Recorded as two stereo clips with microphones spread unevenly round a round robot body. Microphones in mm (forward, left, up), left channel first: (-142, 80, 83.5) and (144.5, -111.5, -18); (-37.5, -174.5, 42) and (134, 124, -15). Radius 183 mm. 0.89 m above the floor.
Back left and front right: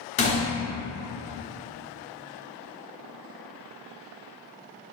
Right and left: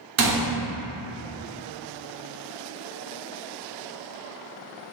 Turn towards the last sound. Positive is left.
turn(degrees=100)